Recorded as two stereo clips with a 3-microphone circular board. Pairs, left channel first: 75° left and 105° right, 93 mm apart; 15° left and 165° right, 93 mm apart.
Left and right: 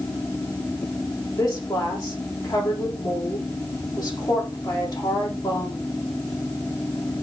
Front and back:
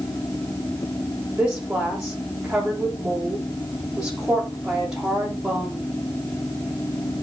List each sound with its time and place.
1.4 s a woman speaking: 115° left, 6.5 m